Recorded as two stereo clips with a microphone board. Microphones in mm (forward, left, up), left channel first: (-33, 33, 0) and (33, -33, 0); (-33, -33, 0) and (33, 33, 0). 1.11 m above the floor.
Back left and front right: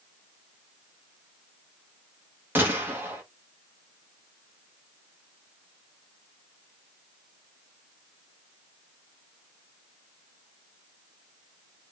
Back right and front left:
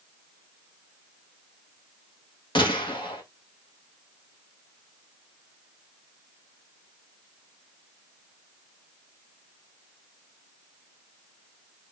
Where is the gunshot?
110° right, 1.6 m.